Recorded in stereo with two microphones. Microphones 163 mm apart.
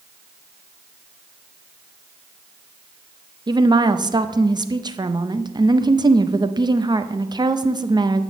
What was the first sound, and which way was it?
A woman speaking, 25° right (ahead or behind).